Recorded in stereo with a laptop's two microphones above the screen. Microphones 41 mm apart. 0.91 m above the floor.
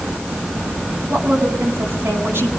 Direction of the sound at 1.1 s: 70° right (ahead or behind).